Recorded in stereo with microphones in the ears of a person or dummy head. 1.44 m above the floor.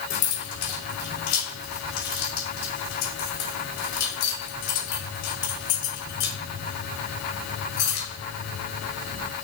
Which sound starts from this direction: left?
Keys jangling, at 0.1 s.